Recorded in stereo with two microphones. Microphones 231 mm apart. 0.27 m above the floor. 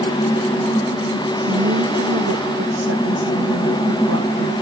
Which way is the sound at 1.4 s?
85° right.